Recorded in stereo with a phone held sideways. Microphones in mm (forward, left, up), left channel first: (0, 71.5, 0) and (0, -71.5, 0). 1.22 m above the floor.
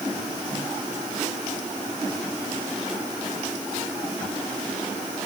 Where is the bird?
No bird in this recording.